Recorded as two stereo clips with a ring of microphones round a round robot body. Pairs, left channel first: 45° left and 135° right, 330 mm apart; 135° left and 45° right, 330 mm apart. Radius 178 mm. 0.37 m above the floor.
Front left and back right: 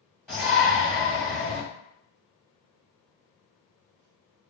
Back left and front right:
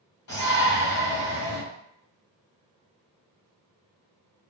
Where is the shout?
145° left, 1.8 m.